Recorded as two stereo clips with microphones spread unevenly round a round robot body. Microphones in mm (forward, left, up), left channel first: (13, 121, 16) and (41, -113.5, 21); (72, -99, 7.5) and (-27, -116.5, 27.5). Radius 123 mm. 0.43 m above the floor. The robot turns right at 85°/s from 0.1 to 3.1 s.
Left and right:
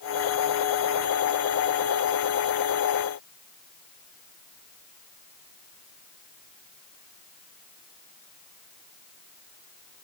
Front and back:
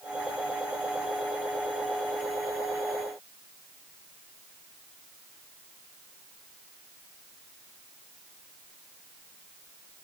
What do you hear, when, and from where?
Only background noise.